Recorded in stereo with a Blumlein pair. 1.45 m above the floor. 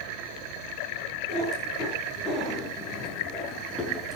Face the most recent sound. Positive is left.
turn(degrees=15)